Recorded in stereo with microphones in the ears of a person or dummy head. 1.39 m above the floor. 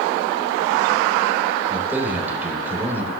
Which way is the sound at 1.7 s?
10° right (ahead or behind).